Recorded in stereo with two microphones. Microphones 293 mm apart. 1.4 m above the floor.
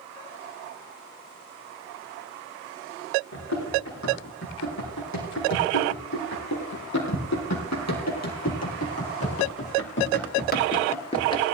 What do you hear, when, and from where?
3.3 s running footsteps: 70° left (ahead or behind), 6 m; by 11.4 s 15° left (ahead or behind), 1.7 m